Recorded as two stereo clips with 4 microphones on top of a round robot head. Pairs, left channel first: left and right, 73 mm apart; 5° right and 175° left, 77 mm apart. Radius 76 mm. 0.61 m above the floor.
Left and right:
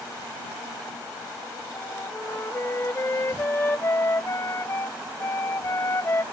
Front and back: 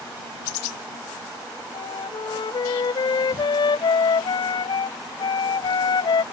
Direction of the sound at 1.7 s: 25° left.